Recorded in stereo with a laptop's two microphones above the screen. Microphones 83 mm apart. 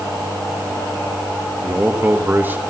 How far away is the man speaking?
About 0.9 m.